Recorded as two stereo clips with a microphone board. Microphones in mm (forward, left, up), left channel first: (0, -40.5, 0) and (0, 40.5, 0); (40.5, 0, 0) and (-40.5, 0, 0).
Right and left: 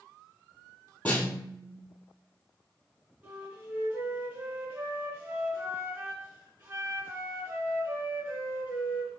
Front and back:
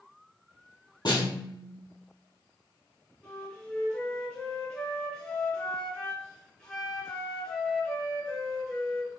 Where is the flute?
55° left, 1.8 m.